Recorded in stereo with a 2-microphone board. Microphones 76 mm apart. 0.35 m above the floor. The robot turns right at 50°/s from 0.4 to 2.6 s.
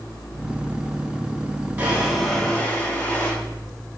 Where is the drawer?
30° right, 8 m; by 3.3 s 10° left, 8 m.